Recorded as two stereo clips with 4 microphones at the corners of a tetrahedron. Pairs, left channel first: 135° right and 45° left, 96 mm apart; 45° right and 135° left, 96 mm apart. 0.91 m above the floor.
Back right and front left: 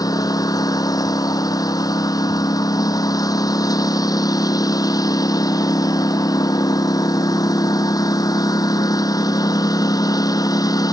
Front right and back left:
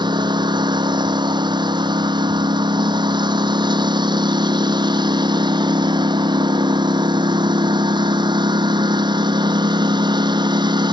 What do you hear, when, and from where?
0.0 s a lawn mower: 175° left